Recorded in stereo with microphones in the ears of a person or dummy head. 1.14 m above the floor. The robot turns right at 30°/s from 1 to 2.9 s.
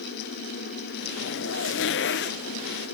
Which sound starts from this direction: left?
A zipper, at 1.2 s.